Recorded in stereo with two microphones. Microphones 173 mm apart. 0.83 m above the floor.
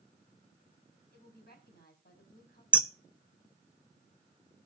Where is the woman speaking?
65° left (ahead or behind), 5.5 m.